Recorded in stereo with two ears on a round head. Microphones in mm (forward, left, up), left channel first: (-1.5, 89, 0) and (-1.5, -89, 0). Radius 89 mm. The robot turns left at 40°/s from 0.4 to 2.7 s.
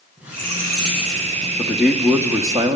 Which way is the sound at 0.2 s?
10° right.